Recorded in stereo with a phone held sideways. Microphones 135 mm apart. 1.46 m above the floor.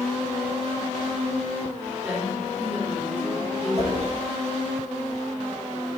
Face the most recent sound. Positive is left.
turn(degrees=-50)  # may be behind; listen again after turning